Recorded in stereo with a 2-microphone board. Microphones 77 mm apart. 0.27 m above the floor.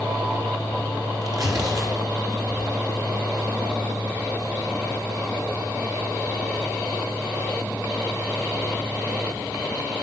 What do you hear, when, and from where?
1.2 s tearing paper: 50° right (ahead or behind), 3.5 m